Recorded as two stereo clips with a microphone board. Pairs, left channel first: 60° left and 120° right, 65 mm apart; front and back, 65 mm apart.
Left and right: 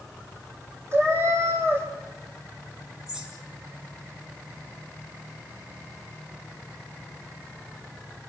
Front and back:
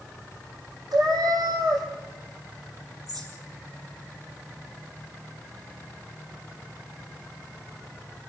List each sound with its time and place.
0.9 s a cat meowing: 170° right, 4 m
3.1 s a bird: 160° left, 5 m